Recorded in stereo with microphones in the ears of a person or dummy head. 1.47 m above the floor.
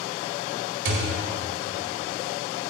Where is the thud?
60° right (ahead or behind), 2 m.